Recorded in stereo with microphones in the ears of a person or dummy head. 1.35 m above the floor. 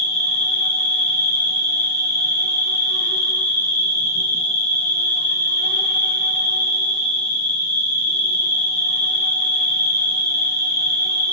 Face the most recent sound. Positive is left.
turn(degrees=30)  # may be behind; listen again after turning